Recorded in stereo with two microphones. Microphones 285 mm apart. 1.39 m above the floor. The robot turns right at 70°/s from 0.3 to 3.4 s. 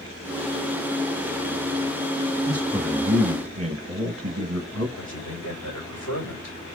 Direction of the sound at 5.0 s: 70° left (ahead or behind).